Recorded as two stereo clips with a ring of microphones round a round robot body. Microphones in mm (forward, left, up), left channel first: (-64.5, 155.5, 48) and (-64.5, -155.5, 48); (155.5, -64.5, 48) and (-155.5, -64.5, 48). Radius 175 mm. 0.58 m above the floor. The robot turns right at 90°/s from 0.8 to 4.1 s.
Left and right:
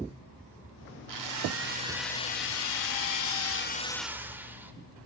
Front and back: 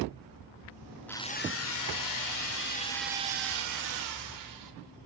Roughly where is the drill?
Right.